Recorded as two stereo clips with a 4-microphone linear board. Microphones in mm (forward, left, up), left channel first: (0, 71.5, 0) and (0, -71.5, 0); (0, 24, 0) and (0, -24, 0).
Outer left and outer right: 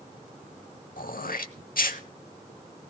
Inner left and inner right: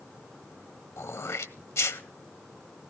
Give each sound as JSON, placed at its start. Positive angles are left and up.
{"t": 1.0, "sound": "throat clearing", "side_deg": 80, "distance_m": 0.7}